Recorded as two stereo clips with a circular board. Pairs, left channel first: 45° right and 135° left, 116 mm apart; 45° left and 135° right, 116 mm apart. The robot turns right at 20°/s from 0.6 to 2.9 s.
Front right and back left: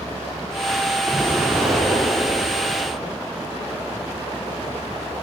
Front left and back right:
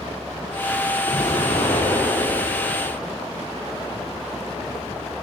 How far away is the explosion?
About 4 m.